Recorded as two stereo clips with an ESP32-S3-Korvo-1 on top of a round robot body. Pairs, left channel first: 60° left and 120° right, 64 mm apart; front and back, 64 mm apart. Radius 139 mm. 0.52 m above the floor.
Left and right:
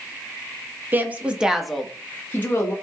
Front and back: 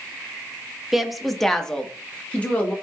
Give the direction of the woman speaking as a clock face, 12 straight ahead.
3 o'clock.